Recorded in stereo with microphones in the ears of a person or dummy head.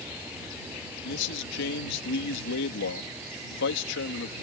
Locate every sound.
0.0 s a vehicle: 10° right (ahead or behind); by 4.5 s 15° right (ahead or behind)
1.0 s a man speaking: 70° left (ahead or behind)